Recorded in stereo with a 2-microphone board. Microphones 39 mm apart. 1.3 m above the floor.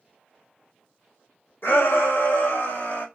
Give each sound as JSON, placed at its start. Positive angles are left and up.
{"t": 1.6, "sound": "a shout", "side_deg": 75, "distance_m": 1.7}